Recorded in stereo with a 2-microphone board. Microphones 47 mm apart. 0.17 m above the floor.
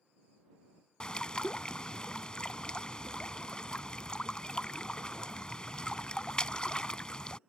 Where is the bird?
20° left (ahead or behind).